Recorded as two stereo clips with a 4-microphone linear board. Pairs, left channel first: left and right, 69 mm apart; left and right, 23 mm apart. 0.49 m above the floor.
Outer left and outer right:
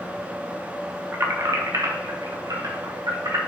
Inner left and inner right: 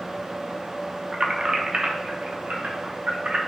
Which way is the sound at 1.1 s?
40° right (ahead or behind).